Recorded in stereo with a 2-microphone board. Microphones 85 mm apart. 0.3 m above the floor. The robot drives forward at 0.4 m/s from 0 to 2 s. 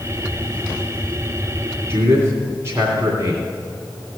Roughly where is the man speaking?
Right.